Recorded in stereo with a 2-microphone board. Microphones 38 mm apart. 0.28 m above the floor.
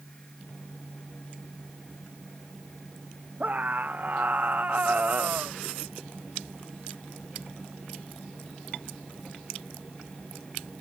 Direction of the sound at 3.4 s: 45° right (ahead or behind).